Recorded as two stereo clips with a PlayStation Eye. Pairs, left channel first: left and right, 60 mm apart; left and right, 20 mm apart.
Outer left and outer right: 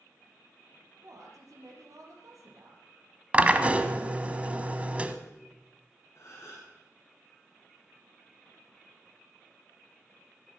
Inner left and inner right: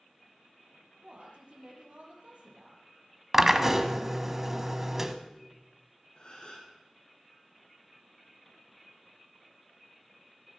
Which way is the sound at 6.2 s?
50° left (ahead or behind).